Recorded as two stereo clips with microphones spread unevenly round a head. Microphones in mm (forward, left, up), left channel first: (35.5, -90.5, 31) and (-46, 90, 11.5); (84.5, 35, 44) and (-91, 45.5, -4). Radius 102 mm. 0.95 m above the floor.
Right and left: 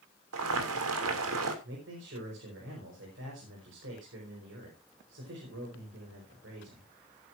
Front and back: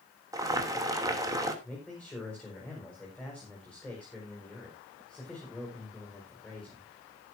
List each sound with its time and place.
0.3 s boiling: 110° left, 3 m
1.6 s a man speaking: 85° left, 5 m